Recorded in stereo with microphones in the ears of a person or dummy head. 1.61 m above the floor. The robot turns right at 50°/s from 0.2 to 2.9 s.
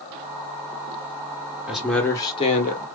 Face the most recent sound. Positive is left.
turn(degrees=50)